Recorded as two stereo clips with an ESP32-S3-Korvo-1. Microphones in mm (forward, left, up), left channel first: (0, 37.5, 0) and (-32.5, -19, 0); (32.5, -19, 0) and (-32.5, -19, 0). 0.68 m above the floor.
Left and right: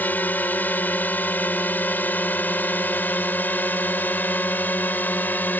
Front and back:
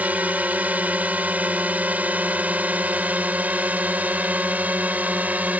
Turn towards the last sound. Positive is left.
turn(degrees=120)